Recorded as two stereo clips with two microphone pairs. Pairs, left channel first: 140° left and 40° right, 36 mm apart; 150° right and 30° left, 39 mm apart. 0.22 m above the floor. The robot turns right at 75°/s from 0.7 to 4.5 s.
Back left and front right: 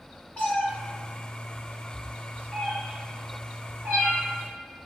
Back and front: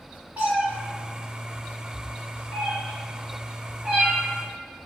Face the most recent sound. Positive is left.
turn(degrees=0)